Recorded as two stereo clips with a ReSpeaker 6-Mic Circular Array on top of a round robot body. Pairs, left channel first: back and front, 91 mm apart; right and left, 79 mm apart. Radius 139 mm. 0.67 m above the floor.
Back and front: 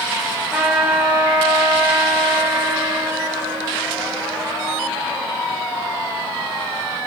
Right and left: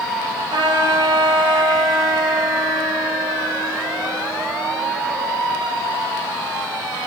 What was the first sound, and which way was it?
A trumpet, 80° left.